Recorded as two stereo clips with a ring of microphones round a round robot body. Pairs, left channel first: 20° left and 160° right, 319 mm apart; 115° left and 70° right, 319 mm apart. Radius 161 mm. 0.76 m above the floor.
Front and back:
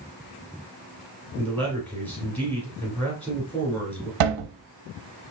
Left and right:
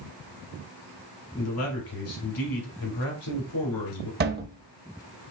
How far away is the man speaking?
About 3 m.